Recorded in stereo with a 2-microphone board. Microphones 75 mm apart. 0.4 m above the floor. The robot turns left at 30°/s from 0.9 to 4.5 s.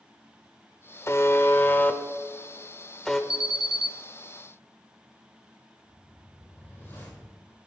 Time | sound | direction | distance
1.1 | a buzzer | 35° left (ahead or behind) | 0.6 m
3.3 | an alarm | 10° right (ahead or behind) | 0.6 m
5.8 | a whoosh | 25° left (ahead or behind) | 3.5 m